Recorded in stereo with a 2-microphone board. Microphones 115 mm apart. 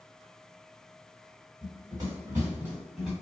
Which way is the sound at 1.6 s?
40° right (ahead or behind).